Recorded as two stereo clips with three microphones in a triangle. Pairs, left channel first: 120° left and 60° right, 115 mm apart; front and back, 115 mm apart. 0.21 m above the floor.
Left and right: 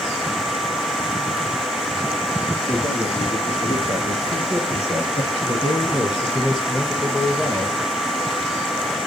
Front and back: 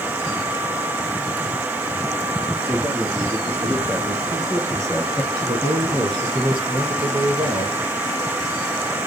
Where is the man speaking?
100° left, 3 m; by 7.8 s 160° right, 1.6 m.